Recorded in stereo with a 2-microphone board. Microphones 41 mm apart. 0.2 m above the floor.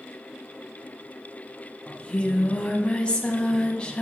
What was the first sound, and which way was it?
Singing, 25° left (ahead or behind).